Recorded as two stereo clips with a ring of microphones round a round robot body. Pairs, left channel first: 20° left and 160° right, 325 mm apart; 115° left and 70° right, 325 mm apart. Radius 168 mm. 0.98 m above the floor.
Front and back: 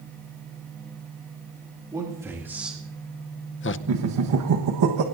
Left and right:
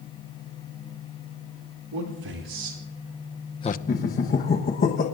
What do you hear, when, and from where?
1.9 s a man speaking: 80° right, 2.5 m; by 3.8 s 60° left, 0.8 m
3.9 s laughter: 175° left, 1.2 m